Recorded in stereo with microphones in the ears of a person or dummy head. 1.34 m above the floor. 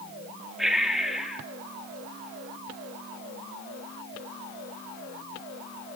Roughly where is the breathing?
Centre.